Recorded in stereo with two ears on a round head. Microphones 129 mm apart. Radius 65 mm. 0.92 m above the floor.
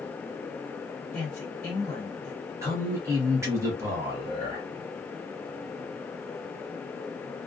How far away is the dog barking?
No dog barking in this recording.